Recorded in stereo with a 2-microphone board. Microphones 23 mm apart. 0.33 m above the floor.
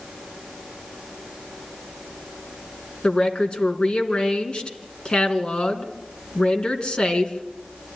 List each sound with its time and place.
3.0 s a woman speaking: 40° left (ahead or behind), 3 m